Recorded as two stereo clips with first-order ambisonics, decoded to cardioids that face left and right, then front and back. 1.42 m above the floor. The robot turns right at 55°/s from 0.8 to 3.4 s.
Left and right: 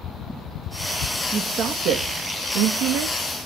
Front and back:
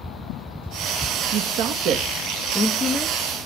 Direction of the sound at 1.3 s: 165° right.